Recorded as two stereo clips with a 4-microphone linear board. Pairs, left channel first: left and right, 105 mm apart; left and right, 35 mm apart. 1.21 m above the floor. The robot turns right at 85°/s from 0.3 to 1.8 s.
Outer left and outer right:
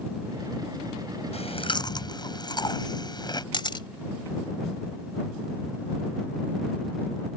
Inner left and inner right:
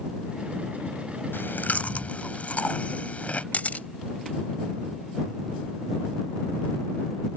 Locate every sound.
1.3 s chewing: 95° left; by 3.4 s 135° left
3.5 s a camera shutter: 50° left (ahead or behind)